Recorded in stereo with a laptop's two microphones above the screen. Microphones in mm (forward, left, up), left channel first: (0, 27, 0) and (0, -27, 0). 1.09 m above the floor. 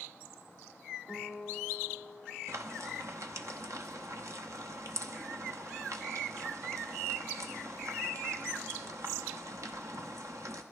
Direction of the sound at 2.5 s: 70° right (ahead or behind).